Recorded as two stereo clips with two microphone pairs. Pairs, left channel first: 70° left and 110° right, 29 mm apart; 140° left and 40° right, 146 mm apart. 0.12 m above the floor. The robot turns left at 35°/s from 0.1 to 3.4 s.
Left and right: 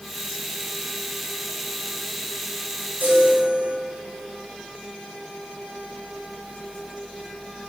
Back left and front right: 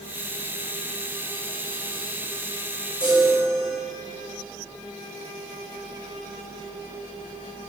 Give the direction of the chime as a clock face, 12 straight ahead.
4 o'clock.